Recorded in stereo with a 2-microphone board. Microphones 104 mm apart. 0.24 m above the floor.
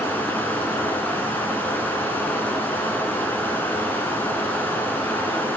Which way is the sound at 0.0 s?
15° left (ahead or behind).